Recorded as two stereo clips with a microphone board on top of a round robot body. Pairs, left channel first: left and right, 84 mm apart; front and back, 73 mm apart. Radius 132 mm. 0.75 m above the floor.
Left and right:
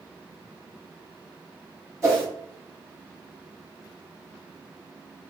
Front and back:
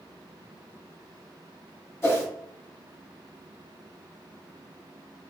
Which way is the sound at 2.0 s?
45° right.